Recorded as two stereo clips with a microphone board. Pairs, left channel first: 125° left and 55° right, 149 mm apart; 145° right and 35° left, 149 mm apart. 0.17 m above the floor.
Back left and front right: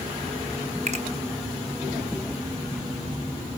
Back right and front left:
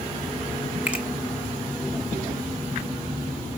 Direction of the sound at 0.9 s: 45° right.